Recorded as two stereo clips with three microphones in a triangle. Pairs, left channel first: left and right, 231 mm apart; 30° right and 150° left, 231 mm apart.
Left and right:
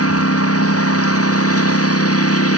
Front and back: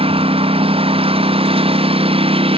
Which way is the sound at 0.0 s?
85° left.